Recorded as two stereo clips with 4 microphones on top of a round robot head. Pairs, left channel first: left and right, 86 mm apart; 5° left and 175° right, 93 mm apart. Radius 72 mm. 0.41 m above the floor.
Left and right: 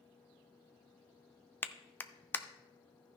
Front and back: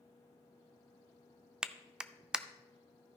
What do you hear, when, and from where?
1.6 s a clap: 115° left, 0.5 m